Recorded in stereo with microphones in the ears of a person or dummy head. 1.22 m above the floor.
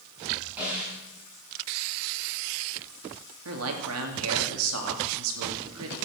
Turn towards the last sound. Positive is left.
turn(degrees=-80)